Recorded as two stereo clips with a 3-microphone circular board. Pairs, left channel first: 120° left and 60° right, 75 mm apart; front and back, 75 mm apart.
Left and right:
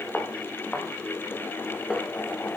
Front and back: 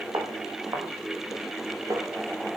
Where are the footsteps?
170° right, 6 m; by 2.6 s 145° right, 7 m.